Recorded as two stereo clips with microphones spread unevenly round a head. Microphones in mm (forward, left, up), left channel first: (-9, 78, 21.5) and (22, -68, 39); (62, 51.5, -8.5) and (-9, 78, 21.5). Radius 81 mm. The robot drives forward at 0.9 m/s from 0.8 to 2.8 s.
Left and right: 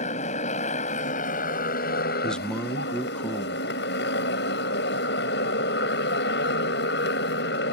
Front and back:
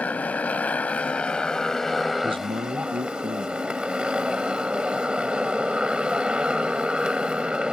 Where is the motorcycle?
55° left; by 7.8 s 90° left.